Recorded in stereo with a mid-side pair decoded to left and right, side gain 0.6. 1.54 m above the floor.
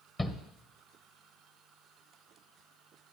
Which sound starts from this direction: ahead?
A shout, at 0.2 s.